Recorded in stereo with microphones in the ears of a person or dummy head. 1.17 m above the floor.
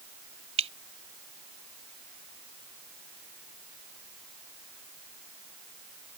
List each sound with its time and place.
0.6 s dripping: 30° right (ahead or behind)